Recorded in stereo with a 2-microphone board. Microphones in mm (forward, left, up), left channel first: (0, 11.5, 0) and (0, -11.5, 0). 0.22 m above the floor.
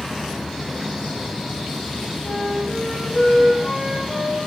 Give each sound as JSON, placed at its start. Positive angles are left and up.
{"t": 2.2, "sound": "a flute", "side_deg": 65, "distance_m": 4.0}